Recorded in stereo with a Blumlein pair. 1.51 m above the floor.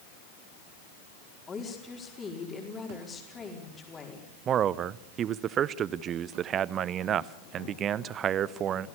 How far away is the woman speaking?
About 4.5 m.